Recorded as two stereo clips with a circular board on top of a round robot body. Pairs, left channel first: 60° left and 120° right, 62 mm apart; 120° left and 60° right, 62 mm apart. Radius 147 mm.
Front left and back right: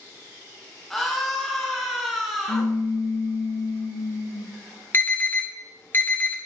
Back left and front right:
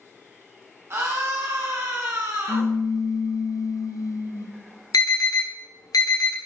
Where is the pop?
85° left, 0.5 m.